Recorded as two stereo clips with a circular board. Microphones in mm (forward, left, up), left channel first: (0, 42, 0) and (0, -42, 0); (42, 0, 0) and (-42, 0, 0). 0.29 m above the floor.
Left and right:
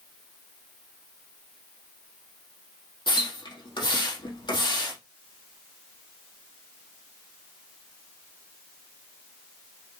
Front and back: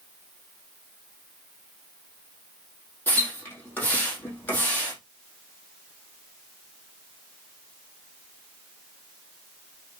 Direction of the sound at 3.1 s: 65° left.